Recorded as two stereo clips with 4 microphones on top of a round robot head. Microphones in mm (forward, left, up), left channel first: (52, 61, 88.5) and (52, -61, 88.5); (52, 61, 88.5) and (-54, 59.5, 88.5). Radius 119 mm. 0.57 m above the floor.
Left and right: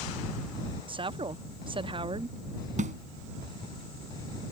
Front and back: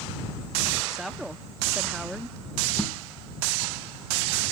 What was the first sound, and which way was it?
A woman speaking, 90° right.